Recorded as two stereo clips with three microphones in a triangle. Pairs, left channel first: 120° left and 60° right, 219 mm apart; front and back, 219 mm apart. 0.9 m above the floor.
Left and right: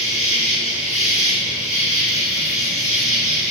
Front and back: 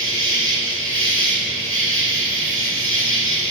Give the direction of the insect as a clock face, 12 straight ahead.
6 o'clock.